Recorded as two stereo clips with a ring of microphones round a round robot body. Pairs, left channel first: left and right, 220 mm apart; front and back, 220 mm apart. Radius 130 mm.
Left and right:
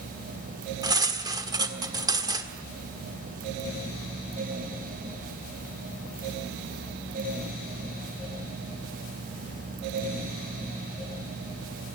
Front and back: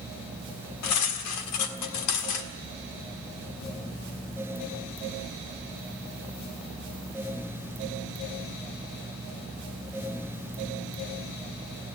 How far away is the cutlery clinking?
About 1.6 m.